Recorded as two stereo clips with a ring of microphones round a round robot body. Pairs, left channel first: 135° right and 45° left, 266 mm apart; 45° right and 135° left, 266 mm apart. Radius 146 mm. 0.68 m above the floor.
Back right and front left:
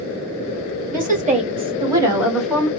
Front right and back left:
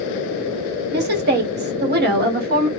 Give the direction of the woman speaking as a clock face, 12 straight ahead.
9 o'clock.